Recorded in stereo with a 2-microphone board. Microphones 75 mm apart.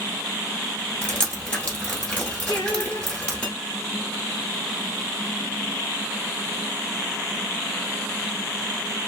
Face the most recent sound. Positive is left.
turn(degrees=40)  # may be behind; listen again after turning